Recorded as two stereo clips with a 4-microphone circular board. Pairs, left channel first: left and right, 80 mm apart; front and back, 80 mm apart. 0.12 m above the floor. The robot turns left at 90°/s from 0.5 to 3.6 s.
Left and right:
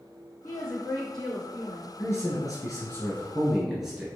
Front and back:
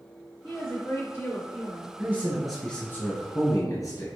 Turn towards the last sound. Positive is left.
turn(degrees=-10)